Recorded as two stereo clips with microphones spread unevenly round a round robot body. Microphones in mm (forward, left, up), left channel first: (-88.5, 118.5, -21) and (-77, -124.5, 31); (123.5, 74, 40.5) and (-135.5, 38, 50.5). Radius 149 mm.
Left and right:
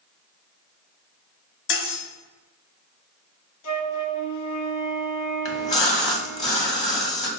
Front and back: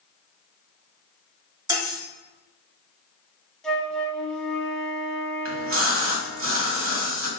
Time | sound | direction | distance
1.7 | cutlery clinking | 110° left | 1.2 m
3.6 | a flute | 95° left | 1.0 m
5.5 | a splash | 155° left | 1.5 m